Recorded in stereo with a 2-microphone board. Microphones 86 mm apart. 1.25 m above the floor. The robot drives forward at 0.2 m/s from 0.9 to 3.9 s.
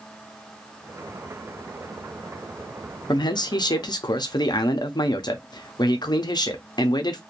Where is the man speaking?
55° left (ahead or behind), 0.5 m; by 7.2 s 50° left (ahead or behind), 0.5 m.